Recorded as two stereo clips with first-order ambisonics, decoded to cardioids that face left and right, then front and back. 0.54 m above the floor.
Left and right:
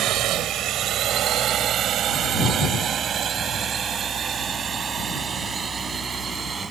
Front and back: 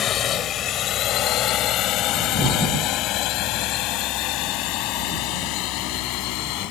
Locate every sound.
0.0 s a drone: 50° right; by 6.7 s 15° right